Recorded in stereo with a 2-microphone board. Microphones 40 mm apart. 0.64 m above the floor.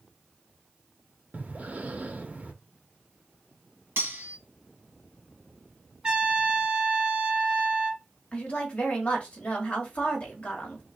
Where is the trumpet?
25° right (ahead or behind), 1.8 m.